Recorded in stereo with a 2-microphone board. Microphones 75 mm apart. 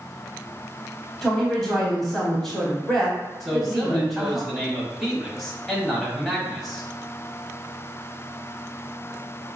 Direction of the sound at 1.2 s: 5° left (ahead or behind).